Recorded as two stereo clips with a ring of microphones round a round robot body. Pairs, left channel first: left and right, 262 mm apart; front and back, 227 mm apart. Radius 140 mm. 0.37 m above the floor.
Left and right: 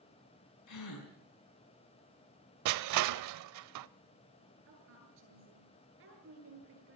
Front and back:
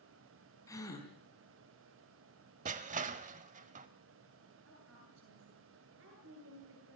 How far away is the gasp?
About 4.5 m.